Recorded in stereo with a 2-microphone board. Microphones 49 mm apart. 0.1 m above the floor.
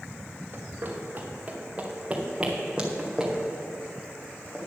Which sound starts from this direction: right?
Running footsteps, at 0.5 s.